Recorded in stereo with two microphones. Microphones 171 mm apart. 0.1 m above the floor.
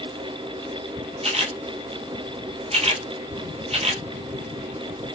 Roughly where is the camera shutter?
Right.